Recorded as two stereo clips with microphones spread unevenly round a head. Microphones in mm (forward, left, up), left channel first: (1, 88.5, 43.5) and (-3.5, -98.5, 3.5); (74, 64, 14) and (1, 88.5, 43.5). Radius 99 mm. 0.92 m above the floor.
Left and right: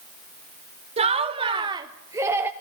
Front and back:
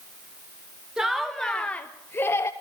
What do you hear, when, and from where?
1.0 s laughter: 95° right, 0.9 m; by 2.5 s 25° right, 1.0 m